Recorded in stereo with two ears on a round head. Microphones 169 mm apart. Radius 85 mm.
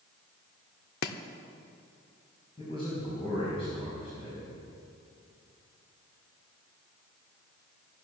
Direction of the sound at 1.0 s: 55° left (ahead or behind).